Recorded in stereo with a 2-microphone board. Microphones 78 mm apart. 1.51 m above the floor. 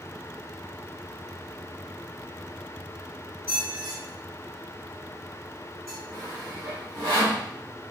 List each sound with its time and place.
3.5 s a squeak: 35° right (ahead or behind), 1.8 m
6.1 s sawing: 65° right (ahead or behind), 2 m